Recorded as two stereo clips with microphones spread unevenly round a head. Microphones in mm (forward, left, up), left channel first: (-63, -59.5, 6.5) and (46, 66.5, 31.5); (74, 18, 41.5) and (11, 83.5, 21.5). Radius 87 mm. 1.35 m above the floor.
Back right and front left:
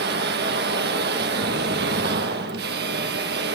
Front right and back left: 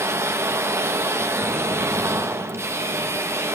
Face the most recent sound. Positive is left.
turn(degrees=75)